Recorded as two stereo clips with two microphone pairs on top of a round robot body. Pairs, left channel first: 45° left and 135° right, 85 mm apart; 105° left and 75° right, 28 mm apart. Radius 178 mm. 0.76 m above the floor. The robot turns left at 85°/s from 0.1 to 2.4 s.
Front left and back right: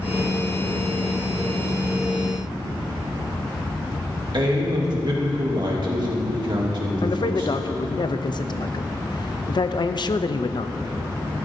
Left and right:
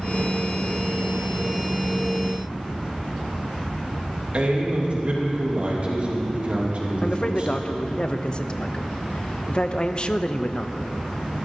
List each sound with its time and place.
4.3 s a man speaking: 115° right, 2.5 m
7.0 s a man speaking: 60° left, 0.7 m